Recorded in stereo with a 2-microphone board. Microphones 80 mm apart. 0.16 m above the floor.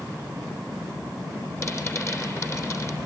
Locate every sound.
1.6 s a rattle: 35° left (ahead or behind), 3.5 m